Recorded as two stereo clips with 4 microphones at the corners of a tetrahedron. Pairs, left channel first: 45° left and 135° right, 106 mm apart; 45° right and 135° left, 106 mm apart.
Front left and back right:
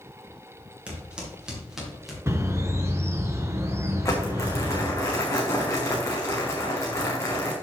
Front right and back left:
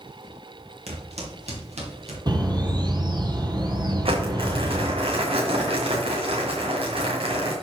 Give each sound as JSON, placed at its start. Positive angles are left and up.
{"t": 0.9, "sound": "footsteps", "azimuth_deg": 145, "distance_m": 3.0}
{"t": 2.3, "sound": "a bird", "azimuth_deg": 165, "distance_m": 1.1}
{"t": 4.0, "sound": "crumpling", "azimuth_deg": 110, "distance_m": 2.5}